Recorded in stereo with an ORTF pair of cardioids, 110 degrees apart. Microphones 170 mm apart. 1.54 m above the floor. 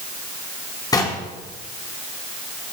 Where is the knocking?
20° left, 3.5 m.